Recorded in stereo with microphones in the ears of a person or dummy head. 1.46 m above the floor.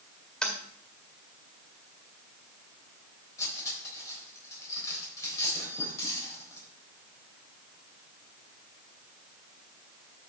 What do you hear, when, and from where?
0.4 s tapping: 10° left (ahead or behind), 1.9 m
3.4 s cutlery clinking: 15° left (ahead or behind), 4 m